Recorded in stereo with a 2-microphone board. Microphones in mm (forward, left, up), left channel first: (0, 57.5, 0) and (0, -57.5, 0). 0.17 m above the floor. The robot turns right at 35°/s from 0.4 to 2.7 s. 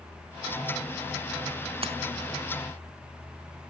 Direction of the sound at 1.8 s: 55° right (ahead or behind).